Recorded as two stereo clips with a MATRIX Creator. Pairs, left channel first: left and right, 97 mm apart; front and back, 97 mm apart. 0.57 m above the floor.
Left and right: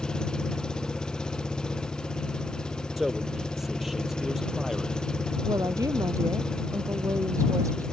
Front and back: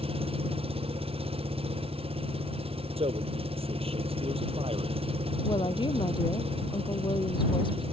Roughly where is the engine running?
Behind.